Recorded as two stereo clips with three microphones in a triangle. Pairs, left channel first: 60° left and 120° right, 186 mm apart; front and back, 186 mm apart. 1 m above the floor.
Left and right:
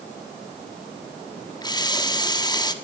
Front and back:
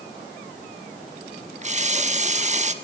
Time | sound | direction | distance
1.6 | a running tap | 125° left | 1.2 m